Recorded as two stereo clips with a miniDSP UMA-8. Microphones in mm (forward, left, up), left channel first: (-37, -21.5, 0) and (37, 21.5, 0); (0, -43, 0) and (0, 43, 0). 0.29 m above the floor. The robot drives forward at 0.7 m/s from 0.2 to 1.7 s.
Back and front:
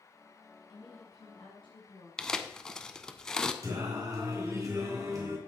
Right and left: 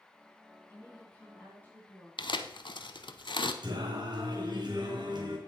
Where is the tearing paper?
65° right, 0.6 m.